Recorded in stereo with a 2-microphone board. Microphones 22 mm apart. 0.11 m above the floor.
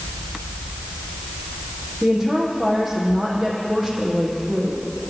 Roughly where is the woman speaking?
Centre.